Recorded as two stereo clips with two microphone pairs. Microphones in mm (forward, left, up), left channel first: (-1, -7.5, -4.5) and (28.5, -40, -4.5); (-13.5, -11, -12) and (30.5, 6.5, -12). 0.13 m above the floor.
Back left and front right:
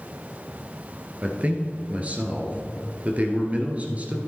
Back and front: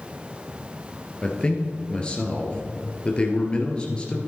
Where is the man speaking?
95° right, 1.9 m.